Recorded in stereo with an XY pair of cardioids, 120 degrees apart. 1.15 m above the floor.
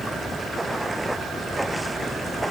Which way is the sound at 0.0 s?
10° right.